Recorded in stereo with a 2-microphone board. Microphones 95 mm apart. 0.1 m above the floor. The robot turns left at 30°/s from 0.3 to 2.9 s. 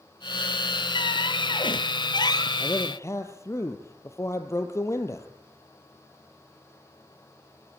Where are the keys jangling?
No keys jangling in this recording.